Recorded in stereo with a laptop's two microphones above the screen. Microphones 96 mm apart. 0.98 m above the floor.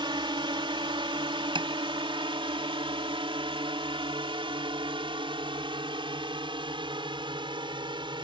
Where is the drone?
55° right (ahead or behind); by 8.2 s 60° right (ahead or behind).